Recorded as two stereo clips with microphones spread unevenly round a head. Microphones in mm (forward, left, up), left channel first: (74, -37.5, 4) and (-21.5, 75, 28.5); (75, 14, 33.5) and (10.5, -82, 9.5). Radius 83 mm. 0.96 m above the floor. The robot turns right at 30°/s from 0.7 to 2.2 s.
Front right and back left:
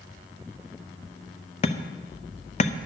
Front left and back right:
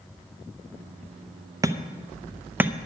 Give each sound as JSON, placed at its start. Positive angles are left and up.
{"t": 1.6, "sound": "hammering", "azimuth_deg": -80, "distance_m": 0.8}